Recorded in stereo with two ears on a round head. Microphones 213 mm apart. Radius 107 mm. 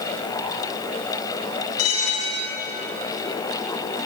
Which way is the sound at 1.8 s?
70° left (ahead or behind).